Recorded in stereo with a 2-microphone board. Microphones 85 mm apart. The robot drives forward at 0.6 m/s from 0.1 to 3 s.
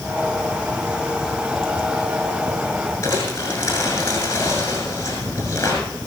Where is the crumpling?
30° left (ahead or behind), 6.5 m.